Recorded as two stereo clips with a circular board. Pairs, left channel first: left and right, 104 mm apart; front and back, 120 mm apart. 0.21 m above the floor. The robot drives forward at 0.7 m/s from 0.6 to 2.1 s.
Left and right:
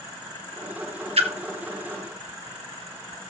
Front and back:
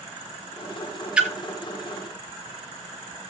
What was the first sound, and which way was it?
A splash, 100° right.